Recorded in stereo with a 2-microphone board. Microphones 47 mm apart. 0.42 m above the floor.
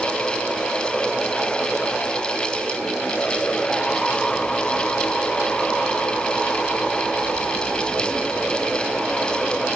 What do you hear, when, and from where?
Only background noise.